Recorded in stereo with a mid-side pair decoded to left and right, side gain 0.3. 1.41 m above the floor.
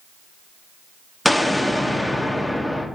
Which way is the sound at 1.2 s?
10° left.